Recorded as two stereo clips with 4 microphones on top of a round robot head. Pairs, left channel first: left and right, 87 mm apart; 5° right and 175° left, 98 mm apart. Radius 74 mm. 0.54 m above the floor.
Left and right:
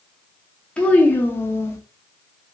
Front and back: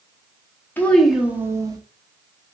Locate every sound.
0.8 s a child speaking: 30° left, 0.7 m; by 1.8 s 140° left, 1.0 m